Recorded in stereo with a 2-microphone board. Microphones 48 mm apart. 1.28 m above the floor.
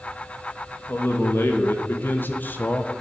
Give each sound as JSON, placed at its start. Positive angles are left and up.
{"t": 0.9, "sound": "a man speaking", "side_deg": 60, "distance_m": 2.0}